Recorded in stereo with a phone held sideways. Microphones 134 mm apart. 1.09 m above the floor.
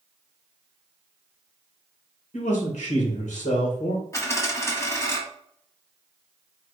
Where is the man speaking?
70° left (ahead or behind), 2 m.